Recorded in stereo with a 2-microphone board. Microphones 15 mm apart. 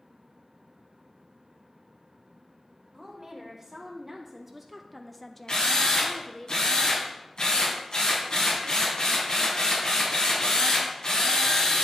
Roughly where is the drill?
Left.